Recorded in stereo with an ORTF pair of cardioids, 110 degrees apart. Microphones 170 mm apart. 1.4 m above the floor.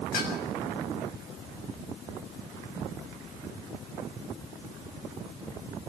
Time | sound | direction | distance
0.1 | dishes clattering | 70° left | 6.5 m